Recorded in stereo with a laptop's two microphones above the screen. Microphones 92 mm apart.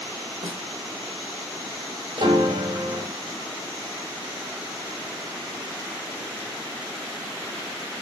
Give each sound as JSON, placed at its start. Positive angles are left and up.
{"t": 0.4, "sound": "a snare drum", "side_deg": -80, "distance_m": 3.0}
{"t": 2.2, "sound": "a piano", "side_deg": -70, "distance_m": 3.5}